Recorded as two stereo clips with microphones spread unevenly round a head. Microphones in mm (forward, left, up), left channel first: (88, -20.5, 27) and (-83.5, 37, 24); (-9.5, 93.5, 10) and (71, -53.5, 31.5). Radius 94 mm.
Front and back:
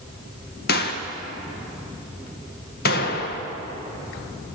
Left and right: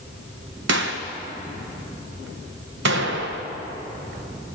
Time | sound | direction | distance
0.7 | a gunshot | 55° right | 1.6 m